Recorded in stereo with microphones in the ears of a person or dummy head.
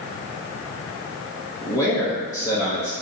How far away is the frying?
I don't hear frying.